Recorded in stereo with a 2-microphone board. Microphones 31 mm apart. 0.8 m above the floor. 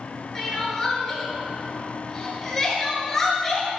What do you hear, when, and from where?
0.3 s crying: 10° left (ahead or behind), 3 m